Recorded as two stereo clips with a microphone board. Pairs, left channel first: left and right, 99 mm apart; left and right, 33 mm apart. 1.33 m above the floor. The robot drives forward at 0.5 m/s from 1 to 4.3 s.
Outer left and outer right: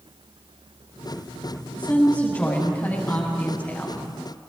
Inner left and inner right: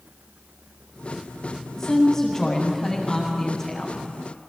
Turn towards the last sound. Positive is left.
turn(degrees=20)  # may be behind; listen again after turning